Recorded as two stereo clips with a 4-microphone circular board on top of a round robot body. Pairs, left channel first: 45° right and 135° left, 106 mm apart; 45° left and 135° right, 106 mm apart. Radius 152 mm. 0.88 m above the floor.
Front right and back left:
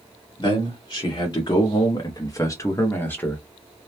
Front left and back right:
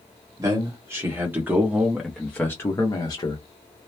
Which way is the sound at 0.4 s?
85° right.